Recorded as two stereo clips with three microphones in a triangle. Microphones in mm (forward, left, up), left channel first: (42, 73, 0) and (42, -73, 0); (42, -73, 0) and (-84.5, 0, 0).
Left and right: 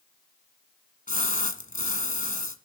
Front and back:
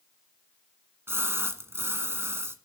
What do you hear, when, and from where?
1.1 s a splash: 80° left, 1.4 m